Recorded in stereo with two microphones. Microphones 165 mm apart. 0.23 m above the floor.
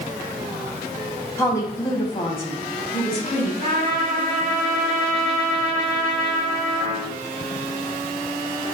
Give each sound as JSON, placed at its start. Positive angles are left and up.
{"t": 1.4, "sound": "a woman speaking", "side_deg": 15, "distance_m": 1.4}
{"t": 3.6, "sound": "a trumpet", "side_deg": -40, "distance_m": 3.5}